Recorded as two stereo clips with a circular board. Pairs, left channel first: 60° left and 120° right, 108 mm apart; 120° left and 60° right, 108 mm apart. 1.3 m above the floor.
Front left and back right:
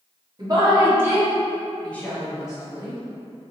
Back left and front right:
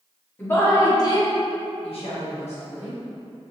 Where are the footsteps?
I don't hear footsteps.